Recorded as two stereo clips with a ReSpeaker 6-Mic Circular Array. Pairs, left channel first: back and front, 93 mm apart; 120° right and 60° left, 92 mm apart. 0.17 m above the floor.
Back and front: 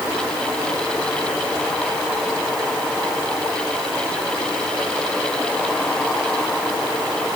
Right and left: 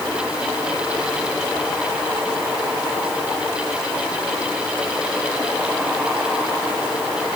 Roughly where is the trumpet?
I don't hear a trumpet.